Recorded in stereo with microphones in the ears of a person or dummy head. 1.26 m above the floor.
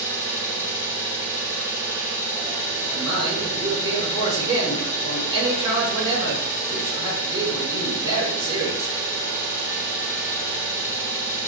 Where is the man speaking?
25° right (ahead or behind), 2.0 m.